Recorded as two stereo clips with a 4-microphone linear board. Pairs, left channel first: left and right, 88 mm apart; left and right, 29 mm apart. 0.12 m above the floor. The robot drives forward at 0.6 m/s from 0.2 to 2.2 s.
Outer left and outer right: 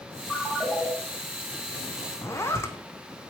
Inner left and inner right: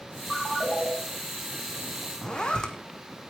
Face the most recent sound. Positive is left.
turn(degrees=30)  # may be behind; listen again after turning